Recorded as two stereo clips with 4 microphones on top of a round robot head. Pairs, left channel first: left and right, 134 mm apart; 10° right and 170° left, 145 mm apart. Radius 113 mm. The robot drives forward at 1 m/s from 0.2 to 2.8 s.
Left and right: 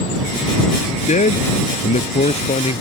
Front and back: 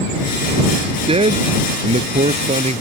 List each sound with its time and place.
1.1 s a man speaking: 120° left; by 2.8 s 130° left